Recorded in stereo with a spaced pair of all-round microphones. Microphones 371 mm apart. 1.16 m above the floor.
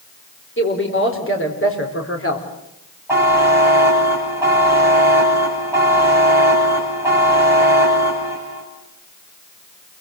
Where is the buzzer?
5° right (ahead or behind), 9.5 m.